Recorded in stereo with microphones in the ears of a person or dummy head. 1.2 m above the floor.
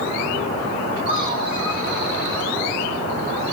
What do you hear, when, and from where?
1.1 s laughter: 50° left (ahead or behind), 3 m; by 2.5 s 80° left, 4 m